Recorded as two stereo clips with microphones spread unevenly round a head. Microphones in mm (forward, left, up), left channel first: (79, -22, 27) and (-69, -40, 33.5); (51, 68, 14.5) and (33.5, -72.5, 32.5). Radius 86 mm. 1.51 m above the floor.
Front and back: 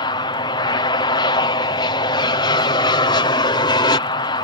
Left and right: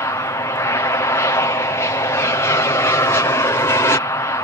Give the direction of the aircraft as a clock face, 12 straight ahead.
11 o'clock.